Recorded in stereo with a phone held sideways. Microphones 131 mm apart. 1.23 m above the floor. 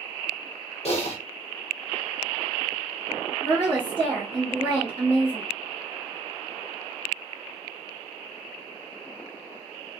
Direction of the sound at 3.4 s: 30° right (ahead or behind).